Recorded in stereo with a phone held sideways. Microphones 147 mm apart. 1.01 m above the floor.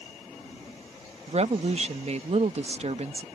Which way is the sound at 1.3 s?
50° right (ahead or behind).